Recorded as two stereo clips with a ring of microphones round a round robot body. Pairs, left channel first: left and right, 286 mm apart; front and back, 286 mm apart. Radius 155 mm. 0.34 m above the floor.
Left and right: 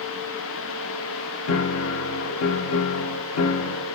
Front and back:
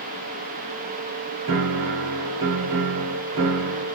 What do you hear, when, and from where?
1.5 s a piano: 135° left, 0.5 m